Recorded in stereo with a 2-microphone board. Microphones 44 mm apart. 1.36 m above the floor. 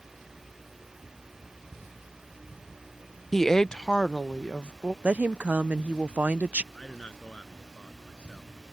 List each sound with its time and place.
3.3 s a woman speaking: 5° left (ahead or behind); by 4.9 s 30° left (ahead or behind)
5.0 s a woman speaking: 35° right (ahead or behind)
6.7 s a man speaking: 25° left (ahead or behind)